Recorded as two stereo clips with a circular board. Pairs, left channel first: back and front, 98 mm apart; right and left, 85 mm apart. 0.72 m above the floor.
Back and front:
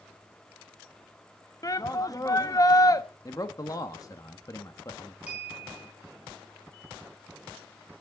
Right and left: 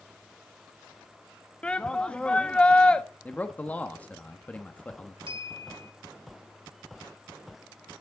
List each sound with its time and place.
1.6 s a shout: 160° right, 0.7 m
3.2 s a man speaking: 150° right, 1.0 m
5.3 s a clink: 75° left, 4.5 m